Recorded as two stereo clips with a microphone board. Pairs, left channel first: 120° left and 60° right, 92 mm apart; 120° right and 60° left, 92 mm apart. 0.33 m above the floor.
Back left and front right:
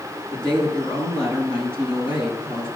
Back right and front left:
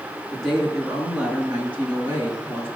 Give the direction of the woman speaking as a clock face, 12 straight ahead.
7 o'clock.